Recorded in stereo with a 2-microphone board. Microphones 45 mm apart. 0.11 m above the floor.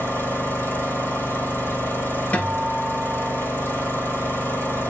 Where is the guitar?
30° left (ahead or behind), 2.5 m.